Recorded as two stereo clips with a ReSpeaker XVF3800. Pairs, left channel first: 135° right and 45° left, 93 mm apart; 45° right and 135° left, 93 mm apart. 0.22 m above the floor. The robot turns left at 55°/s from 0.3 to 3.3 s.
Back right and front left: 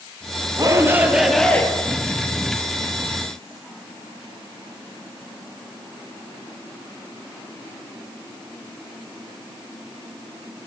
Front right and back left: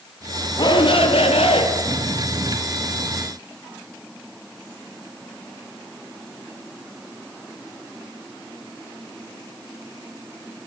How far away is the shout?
About 4 m.